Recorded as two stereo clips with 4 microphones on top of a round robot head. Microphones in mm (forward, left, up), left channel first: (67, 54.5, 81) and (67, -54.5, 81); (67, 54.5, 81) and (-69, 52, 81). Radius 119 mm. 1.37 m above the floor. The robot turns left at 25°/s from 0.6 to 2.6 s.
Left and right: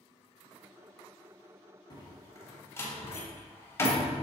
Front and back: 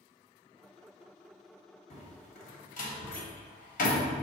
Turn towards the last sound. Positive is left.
turn(degrees=25)